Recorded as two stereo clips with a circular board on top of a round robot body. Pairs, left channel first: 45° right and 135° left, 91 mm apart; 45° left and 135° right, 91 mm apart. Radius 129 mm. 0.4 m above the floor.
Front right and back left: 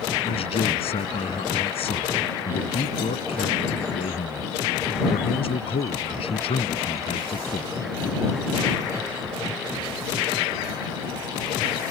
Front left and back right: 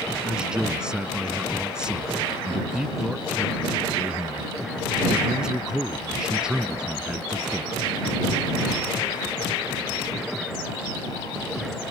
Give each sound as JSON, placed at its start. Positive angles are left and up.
{"t": 0.2, "sound": "a man speaking", "azimuth_deg": -55}